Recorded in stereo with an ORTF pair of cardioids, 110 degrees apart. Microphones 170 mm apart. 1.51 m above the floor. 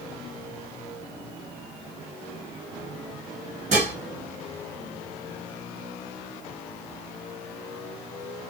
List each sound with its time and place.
3.7 s dishes clattering: 40° right, 1.7 m